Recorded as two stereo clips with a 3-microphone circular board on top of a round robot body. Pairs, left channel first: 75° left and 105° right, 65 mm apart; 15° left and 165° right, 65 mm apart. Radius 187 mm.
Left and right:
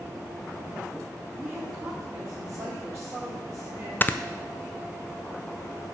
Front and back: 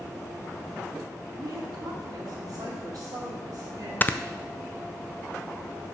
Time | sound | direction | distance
1.4 | a woman speaking | 150° right | 2.0 m
4.0 | snoring | 45° left | 0.6 m